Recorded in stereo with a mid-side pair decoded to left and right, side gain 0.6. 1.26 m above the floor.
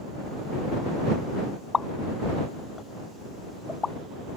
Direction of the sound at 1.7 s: 25° left.